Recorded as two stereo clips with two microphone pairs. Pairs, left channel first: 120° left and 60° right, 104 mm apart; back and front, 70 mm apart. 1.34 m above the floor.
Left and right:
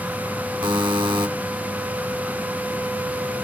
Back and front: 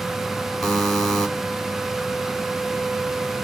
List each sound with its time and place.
0.6 s a buzzer: 95° right, 0.9 m